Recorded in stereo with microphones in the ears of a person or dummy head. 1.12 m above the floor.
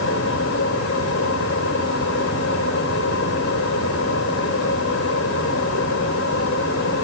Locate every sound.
0.0 s a fan: 70° left (ahead or behind), 4 m